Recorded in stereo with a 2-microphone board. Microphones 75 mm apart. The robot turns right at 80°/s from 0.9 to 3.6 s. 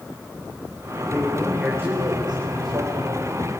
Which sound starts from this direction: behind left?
A man speaking, at 1.1 s.